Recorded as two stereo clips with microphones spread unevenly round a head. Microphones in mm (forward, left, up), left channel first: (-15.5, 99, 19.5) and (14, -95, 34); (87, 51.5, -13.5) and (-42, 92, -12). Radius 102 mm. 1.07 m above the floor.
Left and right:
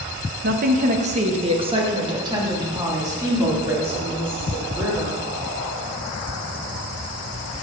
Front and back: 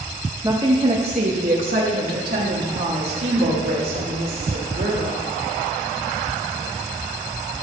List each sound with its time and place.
0.4 s a woman speaking: 120° right, 1.0 m; by 5.2 s 160° right, 4 m